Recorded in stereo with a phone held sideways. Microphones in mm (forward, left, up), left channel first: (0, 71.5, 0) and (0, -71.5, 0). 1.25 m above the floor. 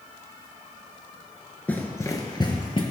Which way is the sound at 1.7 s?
10° left (ahead or behind).